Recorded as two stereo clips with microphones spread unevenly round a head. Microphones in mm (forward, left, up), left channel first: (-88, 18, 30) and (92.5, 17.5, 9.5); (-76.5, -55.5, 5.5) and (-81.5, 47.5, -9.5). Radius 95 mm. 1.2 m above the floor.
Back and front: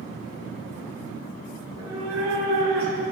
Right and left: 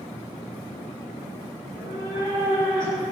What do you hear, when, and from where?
1.6 s a cat meowing: 5° right, 4.5 m; by 3.0 s 25° right, 4.5 m